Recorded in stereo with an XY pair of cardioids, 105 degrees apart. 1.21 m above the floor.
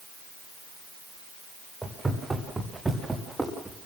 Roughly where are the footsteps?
Ahead.